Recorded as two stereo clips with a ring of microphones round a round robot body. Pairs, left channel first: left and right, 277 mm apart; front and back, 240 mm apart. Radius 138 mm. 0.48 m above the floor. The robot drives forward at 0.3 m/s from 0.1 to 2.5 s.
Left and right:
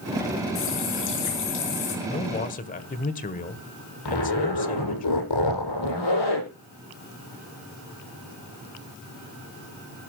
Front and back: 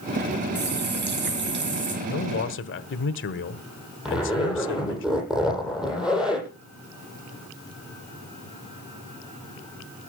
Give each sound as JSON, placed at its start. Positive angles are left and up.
{"t": 0.6, "sound": "a running tap", "azimuth_deg": 135, "distance_m": 5.0}
{"t": 2.0, "sound": "a man speaking", "azimuth_deg": 30, "distance_m": 1.6}
{"t": 4.0, "sound": "a zipper", "azimuth_deg": 95, "distance_m": 9.0}